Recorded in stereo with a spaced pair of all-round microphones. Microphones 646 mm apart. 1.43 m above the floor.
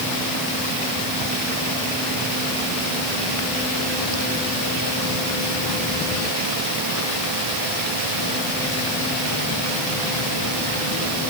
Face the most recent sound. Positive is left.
No sound to turn to.